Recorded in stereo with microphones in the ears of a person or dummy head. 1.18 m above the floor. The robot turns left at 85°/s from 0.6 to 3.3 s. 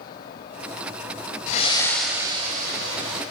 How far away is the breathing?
About 3 m.